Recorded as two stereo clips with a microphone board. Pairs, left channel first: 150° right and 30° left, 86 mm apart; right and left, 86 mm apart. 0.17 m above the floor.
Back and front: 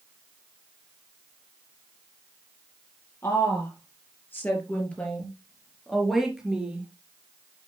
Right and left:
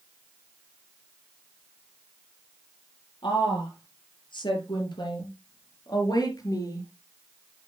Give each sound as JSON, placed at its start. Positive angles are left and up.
{"t": 3.2, "sound": "a woman speaking", "azimuth_deg": -95, "distance_m": 5.0}